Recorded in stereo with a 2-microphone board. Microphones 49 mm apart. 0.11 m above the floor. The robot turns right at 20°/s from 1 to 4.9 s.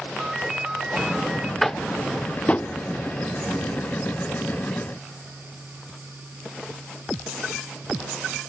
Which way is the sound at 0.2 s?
10° right (ahead or behind).